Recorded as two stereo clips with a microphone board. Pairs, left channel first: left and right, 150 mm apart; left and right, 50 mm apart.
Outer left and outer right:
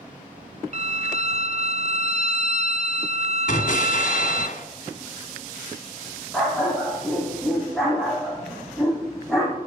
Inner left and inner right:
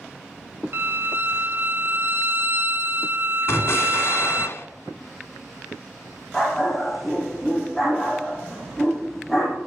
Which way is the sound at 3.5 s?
55° left (ahead or behind).